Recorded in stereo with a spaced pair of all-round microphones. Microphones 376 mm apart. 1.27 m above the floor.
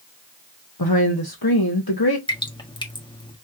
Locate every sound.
0.8 s a woman speaking: 70° left (ahead or behind), 1.2 m
2.3 s dripping: 10° left (ahead or behind), 1.4 m